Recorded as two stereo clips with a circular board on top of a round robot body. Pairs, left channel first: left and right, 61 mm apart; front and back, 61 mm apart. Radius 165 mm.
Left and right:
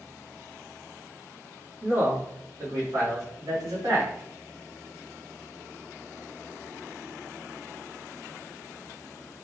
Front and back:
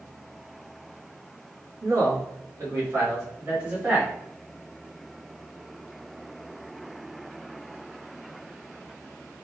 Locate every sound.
1.8 s a man speaking: 145° right, 2 m; by 4.1 s 115° right, 3 m